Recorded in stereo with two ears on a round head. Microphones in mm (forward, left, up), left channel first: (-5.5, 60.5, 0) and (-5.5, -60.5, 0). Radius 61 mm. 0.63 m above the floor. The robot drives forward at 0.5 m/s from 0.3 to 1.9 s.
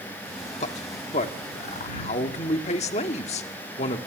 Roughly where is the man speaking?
Left.